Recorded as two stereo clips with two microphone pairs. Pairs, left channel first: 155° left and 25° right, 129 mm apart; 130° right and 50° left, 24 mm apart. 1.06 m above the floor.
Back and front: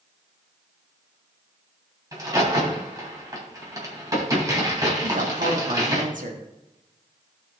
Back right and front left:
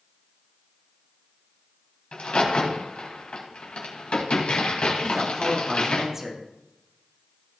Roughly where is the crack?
Right.